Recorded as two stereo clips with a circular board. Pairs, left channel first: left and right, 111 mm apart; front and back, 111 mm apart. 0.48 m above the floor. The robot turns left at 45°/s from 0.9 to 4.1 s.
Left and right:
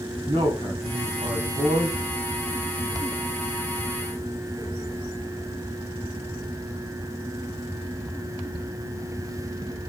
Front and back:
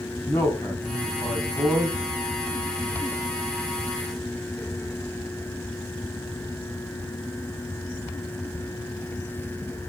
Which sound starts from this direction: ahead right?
A man speaking, at 0.3 s.